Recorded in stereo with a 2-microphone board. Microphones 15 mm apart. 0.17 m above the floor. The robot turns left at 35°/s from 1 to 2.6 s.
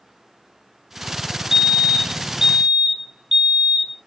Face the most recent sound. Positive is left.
turn(degrees=-60)